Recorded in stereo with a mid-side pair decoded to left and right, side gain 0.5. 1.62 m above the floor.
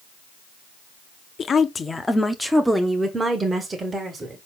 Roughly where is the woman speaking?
Ahead left.